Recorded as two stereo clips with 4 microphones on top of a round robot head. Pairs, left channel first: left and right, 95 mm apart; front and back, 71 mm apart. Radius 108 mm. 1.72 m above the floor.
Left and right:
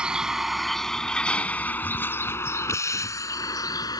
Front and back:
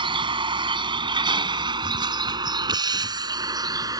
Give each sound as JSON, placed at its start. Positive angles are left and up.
{"t": 0.0, "sound": "a vehicle", "azimuth_deg": -175}